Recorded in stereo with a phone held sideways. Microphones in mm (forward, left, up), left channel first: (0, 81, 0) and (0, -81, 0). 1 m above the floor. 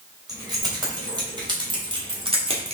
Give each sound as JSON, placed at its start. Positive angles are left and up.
{"t": 0.3, "sound": "keys jangling", "side_deg": -25, "distance_m": 3.5}